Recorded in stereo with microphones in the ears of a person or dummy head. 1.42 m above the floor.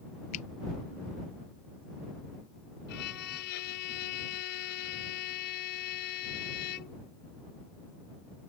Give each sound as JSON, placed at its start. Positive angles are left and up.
{"t": 0.3, "sound": "a finger snap", "side_deg": 45}
{"t": 2.9, "sound": "a violin", "side_deg": 55}